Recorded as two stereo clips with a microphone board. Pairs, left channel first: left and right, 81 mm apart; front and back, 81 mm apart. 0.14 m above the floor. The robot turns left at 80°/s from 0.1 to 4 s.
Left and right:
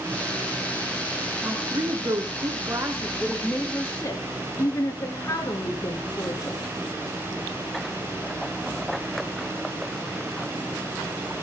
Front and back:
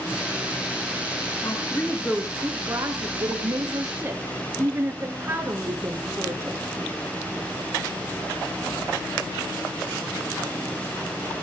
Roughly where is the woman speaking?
Ahead right.